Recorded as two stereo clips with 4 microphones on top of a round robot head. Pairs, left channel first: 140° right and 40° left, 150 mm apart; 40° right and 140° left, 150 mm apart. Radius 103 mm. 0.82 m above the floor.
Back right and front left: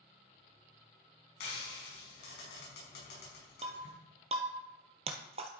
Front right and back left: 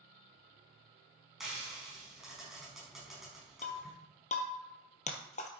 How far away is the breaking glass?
About 1.2 m.